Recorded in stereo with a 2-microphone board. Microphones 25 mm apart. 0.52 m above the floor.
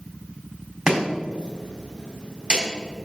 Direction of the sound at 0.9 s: 40° right (ahead or behind).